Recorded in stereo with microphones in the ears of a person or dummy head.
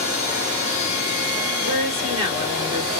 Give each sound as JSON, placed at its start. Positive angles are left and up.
{"t": 1.6, "sound": "a woman speaking", "side_deg": -25, "distance_m": 1.6}